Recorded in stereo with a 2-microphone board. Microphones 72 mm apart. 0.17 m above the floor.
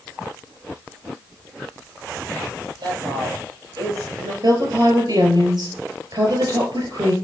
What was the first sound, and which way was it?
A woman speaking, 70° right (ahead or behind).